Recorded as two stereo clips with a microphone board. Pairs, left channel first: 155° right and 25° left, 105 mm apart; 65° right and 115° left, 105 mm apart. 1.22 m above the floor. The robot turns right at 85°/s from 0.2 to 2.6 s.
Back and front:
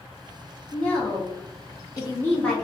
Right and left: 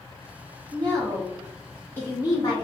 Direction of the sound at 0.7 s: 125° left.